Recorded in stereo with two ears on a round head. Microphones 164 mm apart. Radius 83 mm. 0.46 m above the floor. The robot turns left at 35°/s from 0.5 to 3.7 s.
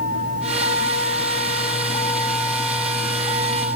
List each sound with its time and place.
0.0 s a vehicle: 75° left; by 3.8 s 35° right